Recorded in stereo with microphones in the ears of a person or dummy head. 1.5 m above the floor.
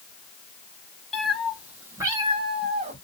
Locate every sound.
1.1 s a cat meowing: centre (ahead or behind), 1.5 m; by 3.0 s 40° right (ahead or behind), 1.4 m